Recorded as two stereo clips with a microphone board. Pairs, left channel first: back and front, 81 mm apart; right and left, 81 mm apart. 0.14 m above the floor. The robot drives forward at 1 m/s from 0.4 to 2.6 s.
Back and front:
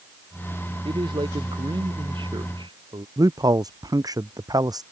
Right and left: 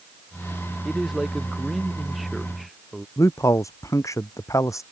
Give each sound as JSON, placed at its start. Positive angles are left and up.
{"t": 0.8, "sound": "a man speaking", "azimuth_deg": 0}
{"t": 3.2, "sound": "a man speaking", "azimuth_deg": -40}